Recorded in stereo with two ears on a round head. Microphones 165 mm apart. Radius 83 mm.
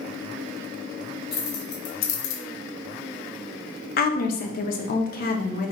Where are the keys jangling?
55° left (ahead or behind), 1.6 m; by 2.4 s 75° left (ahead or behind), 0.7 m.